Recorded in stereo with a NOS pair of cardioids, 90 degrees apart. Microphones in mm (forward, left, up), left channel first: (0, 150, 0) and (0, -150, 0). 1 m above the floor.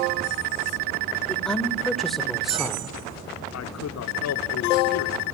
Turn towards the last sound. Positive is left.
turn(degrees=60)